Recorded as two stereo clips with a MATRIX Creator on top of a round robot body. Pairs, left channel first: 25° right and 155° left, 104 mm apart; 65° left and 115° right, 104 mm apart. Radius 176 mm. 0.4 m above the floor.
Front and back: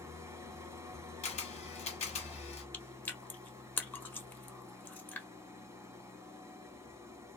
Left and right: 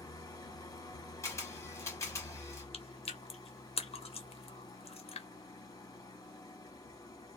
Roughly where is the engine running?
Left.